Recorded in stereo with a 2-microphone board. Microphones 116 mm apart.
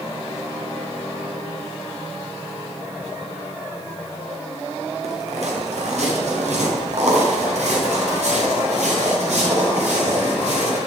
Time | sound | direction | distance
5.0 | footsteps | 65° right (ahead or behind) | 4 m